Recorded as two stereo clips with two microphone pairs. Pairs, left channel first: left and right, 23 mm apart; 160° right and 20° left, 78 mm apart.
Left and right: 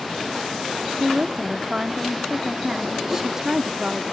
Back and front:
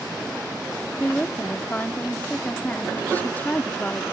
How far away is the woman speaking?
About 0.7 m.